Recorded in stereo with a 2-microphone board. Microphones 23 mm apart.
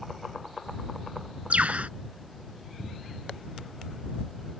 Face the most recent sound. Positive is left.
turn(degrees=-75)  # may be behind; listen again after turning